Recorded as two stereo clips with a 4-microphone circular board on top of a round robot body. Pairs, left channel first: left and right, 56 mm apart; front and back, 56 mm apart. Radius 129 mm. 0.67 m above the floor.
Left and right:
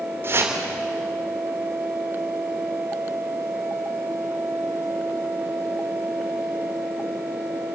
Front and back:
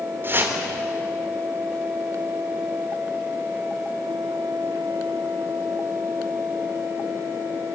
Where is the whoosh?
135° right, 3.5 m.